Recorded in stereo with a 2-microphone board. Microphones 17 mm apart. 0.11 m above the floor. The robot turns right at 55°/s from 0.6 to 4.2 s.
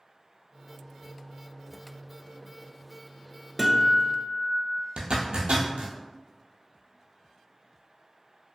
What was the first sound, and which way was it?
A guitar, 10° right.